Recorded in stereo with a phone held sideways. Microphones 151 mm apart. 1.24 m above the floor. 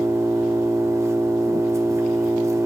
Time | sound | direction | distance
0.0 | an engine running | 20° right (ahead or behind) | 1.4 m